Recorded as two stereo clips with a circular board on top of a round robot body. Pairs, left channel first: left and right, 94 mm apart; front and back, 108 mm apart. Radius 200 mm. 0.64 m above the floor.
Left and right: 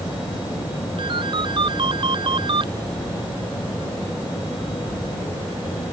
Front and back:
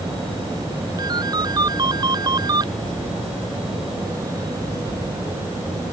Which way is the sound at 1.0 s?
125° right.